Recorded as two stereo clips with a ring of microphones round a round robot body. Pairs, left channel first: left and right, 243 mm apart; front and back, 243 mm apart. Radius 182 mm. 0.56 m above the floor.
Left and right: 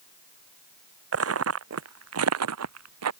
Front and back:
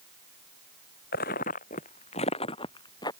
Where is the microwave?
I don't hear a microwave.